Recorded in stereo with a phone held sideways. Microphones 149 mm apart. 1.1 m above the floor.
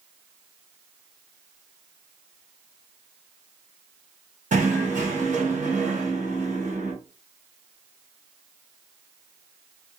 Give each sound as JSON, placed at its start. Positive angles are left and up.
{"t": 4.5, "sound": "knocking", "side_deg": -55, "distance_m": 0.9}